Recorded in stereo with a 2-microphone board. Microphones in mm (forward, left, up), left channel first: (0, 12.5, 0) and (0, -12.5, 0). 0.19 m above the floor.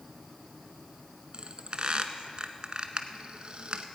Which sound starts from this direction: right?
A squeak, at 1.3 s.